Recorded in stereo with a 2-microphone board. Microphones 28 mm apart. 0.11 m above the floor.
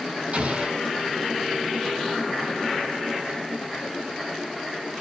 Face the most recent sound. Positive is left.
turn(degrees=-55)  # may be behind; listen again after turning